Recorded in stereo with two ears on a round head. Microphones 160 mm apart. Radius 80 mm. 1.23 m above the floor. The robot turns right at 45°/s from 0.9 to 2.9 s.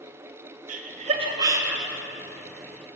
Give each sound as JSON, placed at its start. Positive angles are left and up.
{"t": 0.7, "sound": "laughter", "side_deg": -45, "distance_m": 1.0}